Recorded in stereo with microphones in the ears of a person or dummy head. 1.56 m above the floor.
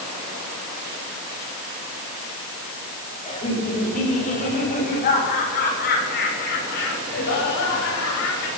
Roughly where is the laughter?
Left.